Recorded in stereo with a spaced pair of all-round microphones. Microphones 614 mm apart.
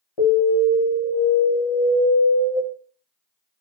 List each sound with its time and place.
0.2 s an alarm: 60° left (ahead or behind), 0.8 m